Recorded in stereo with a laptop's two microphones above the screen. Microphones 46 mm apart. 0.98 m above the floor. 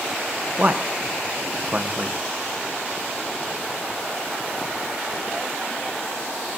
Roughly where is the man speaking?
Right.